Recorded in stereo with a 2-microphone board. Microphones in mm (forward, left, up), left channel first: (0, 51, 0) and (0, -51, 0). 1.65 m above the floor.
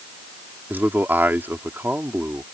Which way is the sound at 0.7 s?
20° right (ahead or behind).